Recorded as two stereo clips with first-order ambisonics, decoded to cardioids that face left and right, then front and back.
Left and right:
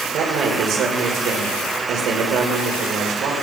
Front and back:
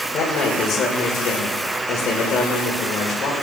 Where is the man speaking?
50° right, 2 m.